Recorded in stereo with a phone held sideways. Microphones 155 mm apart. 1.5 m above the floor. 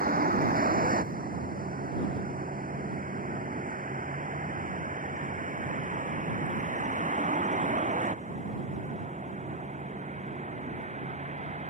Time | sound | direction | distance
0.0 | a vehicle | 65° right (ahead or behind) | ?